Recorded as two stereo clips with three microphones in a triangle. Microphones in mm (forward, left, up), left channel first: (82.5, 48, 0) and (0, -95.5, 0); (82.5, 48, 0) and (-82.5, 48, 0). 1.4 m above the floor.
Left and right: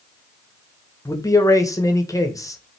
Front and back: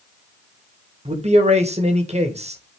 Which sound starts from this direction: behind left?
A man speaking, at 1.1 s.